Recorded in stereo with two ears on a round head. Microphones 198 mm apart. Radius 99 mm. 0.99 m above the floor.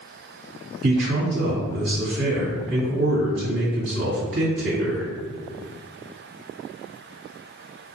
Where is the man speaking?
55° right (ahead or behind), 2.0 m.